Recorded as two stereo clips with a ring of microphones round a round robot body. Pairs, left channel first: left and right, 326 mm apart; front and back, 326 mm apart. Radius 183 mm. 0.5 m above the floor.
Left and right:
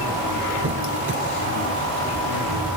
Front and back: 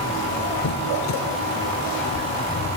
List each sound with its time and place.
0.6 s a squeak: 35° right, 1.7 m